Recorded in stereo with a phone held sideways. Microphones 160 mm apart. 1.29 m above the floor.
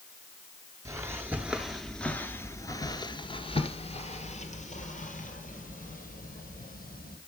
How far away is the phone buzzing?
No phone buzzing in this recording.